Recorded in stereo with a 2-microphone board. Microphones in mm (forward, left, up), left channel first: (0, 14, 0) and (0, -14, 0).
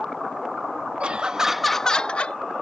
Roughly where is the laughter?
Right.